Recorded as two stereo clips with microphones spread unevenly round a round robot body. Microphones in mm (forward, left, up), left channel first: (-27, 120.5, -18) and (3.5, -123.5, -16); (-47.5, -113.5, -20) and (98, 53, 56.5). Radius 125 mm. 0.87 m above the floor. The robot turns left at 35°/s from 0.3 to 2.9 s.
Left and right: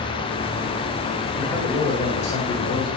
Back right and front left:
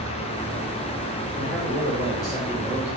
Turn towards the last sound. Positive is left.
turn(degrees=135)